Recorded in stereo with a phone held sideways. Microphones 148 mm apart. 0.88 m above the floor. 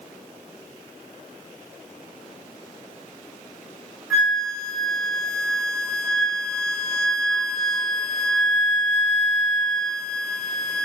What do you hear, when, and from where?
4.1 s a flute: centre (ahead or behind), 1.6 m